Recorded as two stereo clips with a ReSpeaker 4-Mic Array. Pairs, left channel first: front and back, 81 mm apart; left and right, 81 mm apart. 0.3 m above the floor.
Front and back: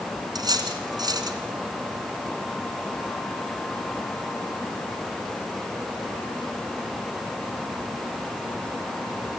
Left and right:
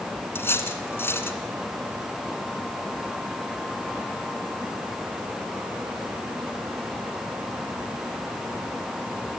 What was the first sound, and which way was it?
Cutlery clinking, 150° left.